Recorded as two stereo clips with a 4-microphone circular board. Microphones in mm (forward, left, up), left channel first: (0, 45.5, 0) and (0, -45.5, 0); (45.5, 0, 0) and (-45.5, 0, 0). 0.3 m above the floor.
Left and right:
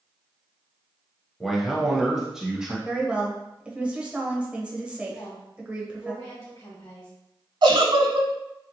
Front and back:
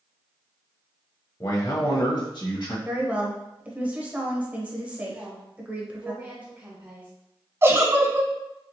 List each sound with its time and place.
1.4 s a man speaking: straight ahead, 1.0 m; by 2.8 s 5° right, 1.6 m
2.9 s a woman speaking: 140° right, 0.9 m
5.1 s a woman speaking: 125° left, 1.3 m
7.6 s a giggle: 115° right, 0.6 m